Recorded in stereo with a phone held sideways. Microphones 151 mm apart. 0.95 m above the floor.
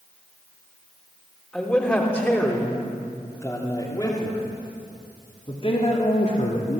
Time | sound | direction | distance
1.5 | a man speaking | 5° left (ahead or behind) | 3.5 m